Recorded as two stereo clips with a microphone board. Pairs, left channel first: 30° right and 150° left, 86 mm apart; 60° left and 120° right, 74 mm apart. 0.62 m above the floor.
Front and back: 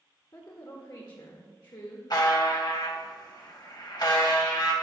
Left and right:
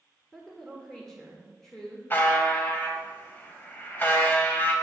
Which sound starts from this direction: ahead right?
A woman speaking, at 0.3 s.